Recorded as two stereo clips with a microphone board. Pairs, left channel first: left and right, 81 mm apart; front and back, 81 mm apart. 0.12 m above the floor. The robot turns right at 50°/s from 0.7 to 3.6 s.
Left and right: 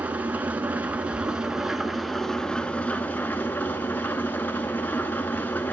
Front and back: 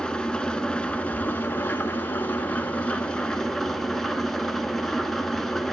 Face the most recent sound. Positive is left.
turn(degrees=85)